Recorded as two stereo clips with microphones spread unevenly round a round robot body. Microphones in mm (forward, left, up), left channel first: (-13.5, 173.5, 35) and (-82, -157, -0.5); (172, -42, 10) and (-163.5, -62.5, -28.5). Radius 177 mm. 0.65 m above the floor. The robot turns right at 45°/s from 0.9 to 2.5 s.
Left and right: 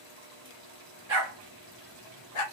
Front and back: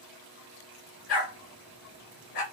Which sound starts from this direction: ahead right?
A dog barking, at 1.1 s.